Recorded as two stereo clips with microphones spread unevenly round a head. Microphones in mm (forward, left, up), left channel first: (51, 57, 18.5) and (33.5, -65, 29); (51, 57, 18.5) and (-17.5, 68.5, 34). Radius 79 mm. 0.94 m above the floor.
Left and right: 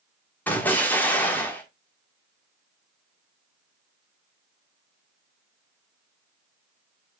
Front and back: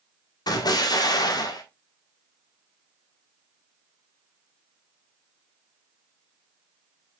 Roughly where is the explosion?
Ahead.